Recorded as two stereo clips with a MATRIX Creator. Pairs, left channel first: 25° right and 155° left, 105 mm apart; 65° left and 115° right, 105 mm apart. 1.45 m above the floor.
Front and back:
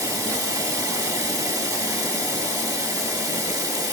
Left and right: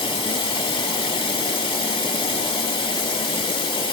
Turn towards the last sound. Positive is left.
turn(degrees=105)